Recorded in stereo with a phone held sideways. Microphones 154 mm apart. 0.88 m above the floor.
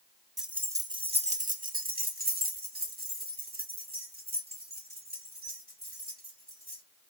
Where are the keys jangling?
Centre (ahead or behind), 0.6 m; by 6.8 s 70° right (ahead or behind), 3.5 m.